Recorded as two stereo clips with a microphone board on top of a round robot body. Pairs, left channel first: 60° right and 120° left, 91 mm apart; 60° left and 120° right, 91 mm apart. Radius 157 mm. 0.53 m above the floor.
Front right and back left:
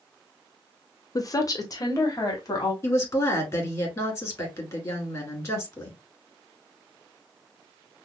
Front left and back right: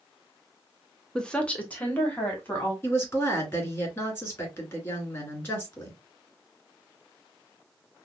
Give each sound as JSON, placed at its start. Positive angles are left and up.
{"t": 1.1, "sound": "a woman speaking", "azimuth_deg": -20, "distance_m": 0.9}
{"t": 2.8, "sound": "a woman speaking", "azimuth_deg": -10, "distance_m": 2.5}